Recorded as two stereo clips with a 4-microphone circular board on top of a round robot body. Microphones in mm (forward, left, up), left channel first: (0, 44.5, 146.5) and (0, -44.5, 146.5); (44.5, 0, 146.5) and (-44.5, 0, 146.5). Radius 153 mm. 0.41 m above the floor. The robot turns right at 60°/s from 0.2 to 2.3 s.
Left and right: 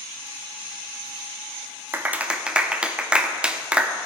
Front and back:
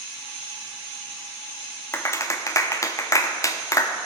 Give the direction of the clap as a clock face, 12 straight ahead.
1 o'clock.